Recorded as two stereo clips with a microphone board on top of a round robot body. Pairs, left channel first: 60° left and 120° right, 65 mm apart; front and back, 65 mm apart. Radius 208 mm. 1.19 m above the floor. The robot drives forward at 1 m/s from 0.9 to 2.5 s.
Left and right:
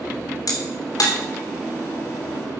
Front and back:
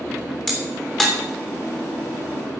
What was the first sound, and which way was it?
A crack, 85° left.